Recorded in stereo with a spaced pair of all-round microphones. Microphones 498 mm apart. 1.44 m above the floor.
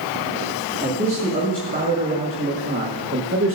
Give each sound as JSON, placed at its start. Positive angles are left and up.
{"t": 0.8, "sound": "a man speaking", "side_deg": -15, "distance_m": 2.5}